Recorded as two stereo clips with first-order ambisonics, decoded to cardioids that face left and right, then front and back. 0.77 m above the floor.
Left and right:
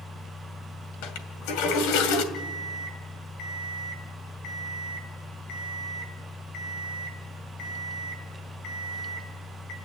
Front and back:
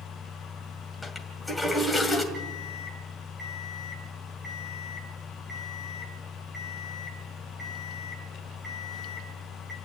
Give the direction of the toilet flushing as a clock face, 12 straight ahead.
9 o'clock.